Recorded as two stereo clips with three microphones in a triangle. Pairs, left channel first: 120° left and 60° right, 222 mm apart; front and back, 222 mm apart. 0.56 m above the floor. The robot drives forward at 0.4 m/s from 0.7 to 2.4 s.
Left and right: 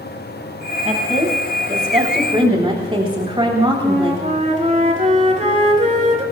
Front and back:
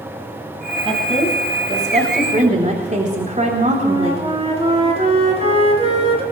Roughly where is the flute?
Behind right.